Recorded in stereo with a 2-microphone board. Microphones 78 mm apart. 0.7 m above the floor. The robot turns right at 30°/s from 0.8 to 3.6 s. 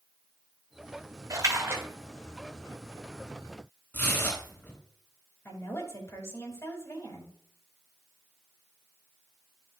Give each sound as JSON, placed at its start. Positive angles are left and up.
{"t": 1.3, "sound": "a splash", "side_deg": -45, "distance_m": 1.8}
{"t": 3.9, "sound": "tearing paper", "side_deg": 25, "distance_m": 3.5}
{"t": 5.5, "sound": "a woman speaking", "side_deg": 35, "distance_m": 3.5}